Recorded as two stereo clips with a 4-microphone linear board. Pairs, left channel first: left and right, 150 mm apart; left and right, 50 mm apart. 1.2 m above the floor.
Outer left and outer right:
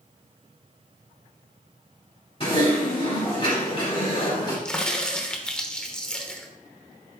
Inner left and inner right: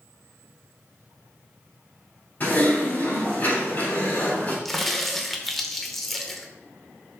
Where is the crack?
5° left (ahead or behind), 0.9 m.